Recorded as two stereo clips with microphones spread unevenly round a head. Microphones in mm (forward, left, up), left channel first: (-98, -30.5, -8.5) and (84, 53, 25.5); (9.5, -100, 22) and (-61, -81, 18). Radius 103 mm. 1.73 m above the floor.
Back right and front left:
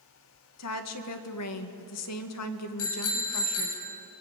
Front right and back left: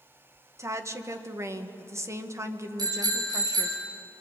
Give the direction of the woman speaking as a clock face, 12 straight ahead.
5 o'clock.